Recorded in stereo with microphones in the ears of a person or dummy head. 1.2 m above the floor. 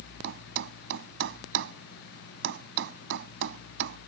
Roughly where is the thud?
Right.